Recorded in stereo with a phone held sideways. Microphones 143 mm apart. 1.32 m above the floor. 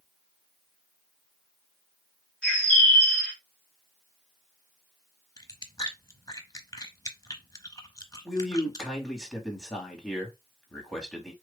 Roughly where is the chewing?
Left.